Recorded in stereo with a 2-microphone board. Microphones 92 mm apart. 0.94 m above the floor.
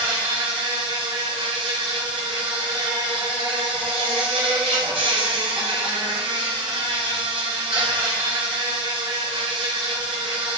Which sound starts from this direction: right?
An insect, at 0.0 s.